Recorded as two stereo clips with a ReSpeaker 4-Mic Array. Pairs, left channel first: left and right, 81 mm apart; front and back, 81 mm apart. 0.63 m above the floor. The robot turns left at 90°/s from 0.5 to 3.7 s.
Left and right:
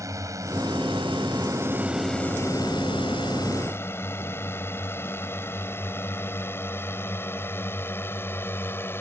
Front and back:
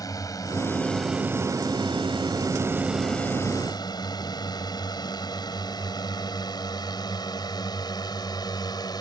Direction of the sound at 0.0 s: 40° right.